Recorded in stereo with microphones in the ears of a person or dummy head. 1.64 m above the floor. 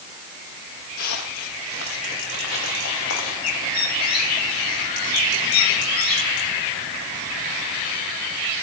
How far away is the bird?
About 4.5 m.